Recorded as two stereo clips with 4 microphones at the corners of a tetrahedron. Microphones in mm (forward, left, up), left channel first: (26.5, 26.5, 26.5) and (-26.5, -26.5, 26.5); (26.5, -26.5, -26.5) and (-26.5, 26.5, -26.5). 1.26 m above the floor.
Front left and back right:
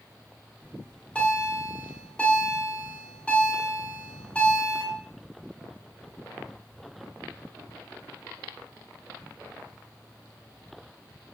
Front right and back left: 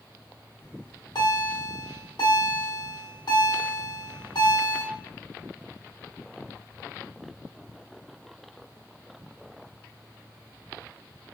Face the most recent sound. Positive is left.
turn(degrees=-30)